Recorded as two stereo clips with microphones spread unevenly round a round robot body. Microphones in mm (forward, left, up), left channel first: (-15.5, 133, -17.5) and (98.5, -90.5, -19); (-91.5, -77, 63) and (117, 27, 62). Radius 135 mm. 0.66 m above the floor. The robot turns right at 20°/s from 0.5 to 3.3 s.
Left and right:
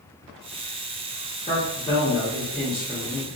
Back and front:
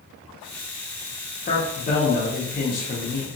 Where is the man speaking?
175° left, 0.7 m; by 3.4 s 150° right, 0.7 m.